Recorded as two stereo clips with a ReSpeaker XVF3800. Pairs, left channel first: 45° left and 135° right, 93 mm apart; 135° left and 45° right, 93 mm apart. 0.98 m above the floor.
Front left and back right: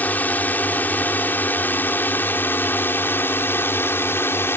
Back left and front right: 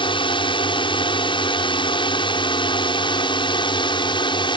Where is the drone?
115° left; by 4.6 s 110° left.